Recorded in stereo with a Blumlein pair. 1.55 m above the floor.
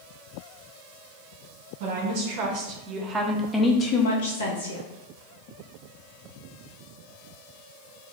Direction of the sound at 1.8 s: 50° right.